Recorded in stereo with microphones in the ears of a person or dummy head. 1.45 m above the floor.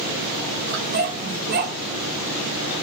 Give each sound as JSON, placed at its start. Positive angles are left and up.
{"t": 0.7, "sound": "a dog barking", "side_deg": -45, "distance_m": 2.0}